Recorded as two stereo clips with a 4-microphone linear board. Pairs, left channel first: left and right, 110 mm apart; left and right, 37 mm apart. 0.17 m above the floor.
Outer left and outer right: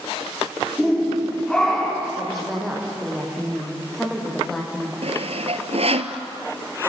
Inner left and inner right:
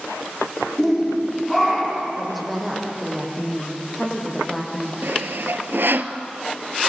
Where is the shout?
5° left (ahead or behind), 9.5 m.